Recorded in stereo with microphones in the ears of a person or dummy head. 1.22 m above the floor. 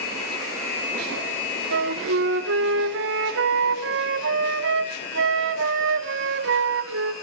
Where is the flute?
60° right (ahead or behind), 1.4 m.